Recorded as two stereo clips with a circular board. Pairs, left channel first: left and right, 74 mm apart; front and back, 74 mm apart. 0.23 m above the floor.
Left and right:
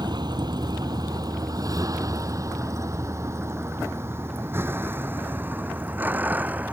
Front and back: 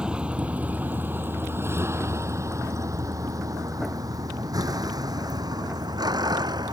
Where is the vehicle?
100° right; by 6.7 s 160° right.